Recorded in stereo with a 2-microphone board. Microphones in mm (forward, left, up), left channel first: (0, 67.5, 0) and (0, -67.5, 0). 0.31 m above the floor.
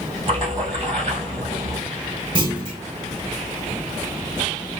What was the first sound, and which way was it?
A splash, 45° right (ahead or behind).